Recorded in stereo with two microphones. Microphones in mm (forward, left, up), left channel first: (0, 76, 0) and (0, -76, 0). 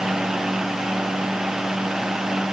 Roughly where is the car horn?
No car horn in this recording.